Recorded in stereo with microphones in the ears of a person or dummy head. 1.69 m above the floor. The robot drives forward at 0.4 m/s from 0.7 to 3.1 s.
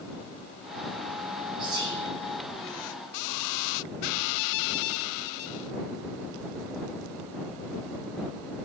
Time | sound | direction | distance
1.6 | whispering | 30° right (ahead or behind) | 9 m